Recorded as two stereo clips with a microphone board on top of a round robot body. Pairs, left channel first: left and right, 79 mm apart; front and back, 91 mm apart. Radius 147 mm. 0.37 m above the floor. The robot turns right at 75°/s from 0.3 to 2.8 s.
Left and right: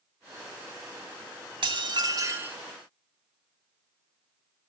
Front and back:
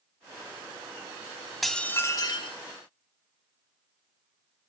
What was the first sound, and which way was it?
Dishes clattering, 90° right.